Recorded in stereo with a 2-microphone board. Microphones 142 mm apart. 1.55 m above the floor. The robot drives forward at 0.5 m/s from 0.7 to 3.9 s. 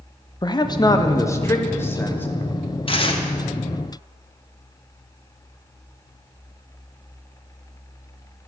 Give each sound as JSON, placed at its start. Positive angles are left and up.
{"t": 0.4, "sound": "a man speaking", "side_deg": 30, "distance_m": 0.7}
{"t": 2.9, "sound": "tearing paper", "side_deg": 40, "distance_m": 1.0}